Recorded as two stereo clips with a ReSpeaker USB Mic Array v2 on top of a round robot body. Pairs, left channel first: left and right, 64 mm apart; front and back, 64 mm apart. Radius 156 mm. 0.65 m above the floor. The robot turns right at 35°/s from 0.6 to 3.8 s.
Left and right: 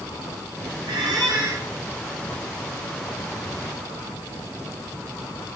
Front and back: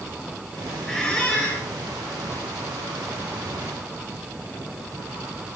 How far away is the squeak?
About 1.2 m.